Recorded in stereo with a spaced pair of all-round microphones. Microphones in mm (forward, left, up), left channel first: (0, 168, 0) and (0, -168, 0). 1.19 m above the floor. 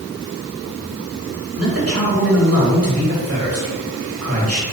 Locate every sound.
1.6 s a man speaking: 45° right (ahead or behind), 3 m